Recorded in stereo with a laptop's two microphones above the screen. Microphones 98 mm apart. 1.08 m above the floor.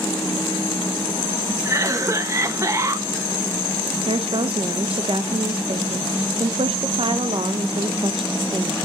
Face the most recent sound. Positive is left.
turn(degrees=-65)  # may be behind; listen again after turning